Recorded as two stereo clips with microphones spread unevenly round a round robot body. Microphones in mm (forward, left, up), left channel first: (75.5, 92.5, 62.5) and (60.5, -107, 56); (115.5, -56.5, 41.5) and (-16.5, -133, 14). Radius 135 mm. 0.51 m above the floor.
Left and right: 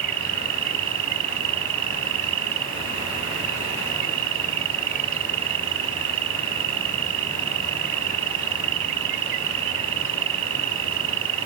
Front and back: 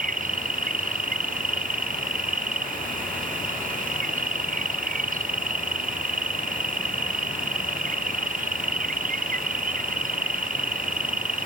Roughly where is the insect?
Behind right.